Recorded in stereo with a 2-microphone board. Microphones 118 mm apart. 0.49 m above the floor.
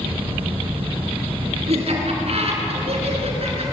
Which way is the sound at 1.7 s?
60° right (ahead or behind).